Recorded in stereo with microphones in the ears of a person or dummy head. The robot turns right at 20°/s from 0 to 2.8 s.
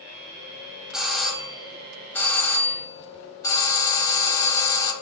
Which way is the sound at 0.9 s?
5° right (ahead or behind).